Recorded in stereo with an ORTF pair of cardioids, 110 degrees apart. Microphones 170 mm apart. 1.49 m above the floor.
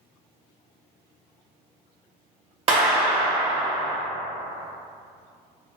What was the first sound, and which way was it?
A clap, 35° right.